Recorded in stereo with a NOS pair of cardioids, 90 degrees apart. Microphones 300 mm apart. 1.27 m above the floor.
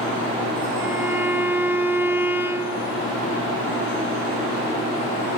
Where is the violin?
5° right, 0.9 m.